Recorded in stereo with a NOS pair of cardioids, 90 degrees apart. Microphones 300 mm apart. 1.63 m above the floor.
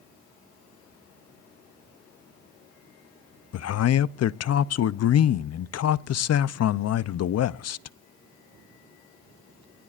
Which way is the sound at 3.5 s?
55° left.